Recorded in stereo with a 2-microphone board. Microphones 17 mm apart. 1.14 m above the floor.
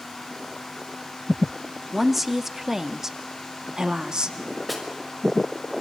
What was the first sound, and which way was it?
A woman speaking, 10° right (ahead or behind).